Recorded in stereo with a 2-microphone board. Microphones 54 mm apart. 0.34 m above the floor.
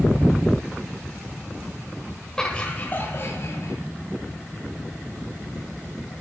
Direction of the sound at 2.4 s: 10° left (ahead or behind).